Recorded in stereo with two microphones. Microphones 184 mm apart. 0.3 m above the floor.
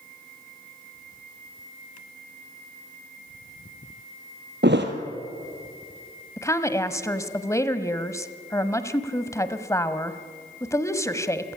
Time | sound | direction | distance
4.6 | a thud | 70° right (ahead or behind) | 2 m
6.4 | a woman speaking | 15° left (ahead or behind) | 1.3 m